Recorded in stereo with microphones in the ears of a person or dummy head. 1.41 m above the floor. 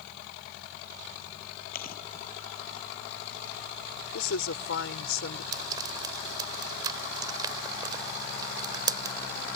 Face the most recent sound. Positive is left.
turn(degrees=-20)  # may be behind; listen again after turning